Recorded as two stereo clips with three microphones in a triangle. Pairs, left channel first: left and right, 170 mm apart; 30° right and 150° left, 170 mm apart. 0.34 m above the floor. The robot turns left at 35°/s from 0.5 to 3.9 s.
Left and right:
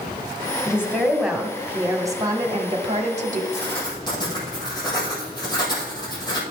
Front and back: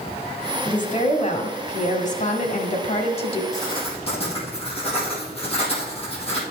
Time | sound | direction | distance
0.7 | a woman speaking | 25° left | 1.7 m
3.5 | writing | 35° left | 3.5 m